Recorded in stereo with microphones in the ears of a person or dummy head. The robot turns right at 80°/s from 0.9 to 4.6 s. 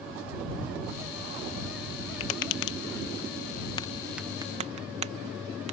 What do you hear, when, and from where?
2.2 s tapping: 30° left (ahead or behind); by 5.7 s 45° right (ahead or behind)